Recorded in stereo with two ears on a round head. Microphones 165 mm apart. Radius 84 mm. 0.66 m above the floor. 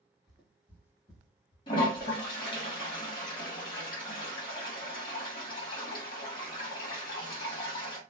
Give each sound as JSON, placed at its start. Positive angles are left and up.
{"t": 0.3, "sound": "footsteps", "side_deg": 0, "distance_m": 1.5}
{"t": 1.7, "sound": "a toilet flushing", "side_deg": 25, "distance_m": 1.5}